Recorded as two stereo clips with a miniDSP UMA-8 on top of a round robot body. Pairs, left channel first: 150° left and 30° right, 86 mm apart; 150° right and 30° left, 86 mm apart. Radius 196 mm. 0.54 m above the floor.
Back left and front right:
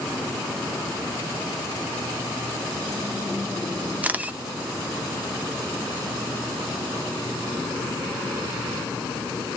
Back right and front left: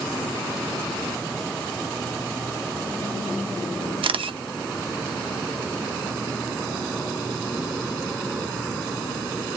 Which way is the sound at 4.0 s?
40° left.